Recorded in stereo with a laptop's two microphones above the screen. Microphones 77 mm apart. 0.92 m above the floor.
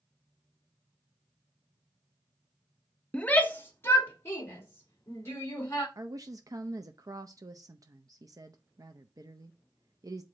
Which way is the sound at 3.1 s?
10° left (ahead or behind).